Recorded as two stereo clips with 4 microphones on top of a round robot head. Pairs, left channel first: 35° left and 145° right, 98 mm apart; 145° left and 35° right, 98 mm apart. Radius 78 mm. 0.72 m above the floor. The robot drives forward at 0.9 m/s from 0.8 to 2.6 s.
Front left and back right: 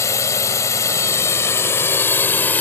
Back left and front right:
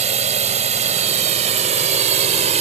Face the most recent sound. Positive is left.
turn(degrees=-35)